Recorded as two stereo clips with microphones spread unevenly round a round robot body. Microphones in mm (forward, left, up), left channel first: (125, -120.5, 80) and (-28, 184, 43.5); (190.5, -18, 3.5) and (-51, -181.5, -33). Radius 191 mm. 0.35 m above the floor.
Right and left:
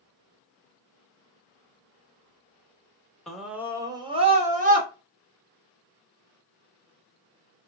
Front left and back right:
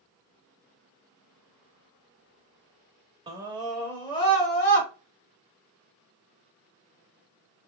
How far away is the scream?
About 0.9 m.